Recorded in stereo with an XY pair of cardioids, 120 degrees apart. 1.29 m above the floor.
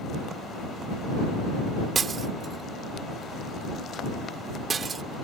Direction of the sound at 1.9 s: 35° right.